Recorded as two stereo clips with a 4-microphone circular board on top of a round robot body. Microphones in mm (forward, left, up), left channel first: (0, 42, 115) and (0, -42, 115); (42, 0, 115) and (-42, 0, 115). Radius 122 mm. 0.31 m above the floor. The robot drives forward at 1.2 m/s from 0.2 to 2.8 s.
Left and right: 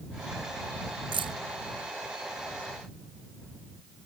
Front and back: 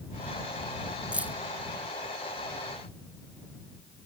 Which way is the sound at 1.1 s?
105° right.